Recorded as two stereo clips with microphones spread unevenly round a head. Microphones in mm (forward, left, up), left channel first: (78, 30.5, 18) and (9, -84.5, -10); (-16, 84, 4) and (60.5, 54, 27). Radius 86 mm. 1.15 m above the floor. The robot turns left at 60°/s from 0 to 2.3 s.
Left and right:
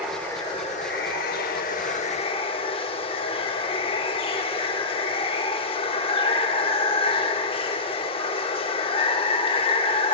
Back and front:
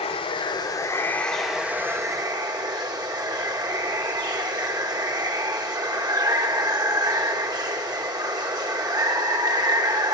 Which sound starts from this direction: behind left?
Running water, at 0.0 s.